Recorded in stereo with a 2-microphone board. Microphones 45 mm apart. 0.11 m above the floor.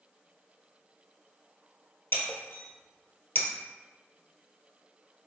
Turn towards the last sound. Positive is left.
turn(degrees=55)  # may be behind; listen again after turning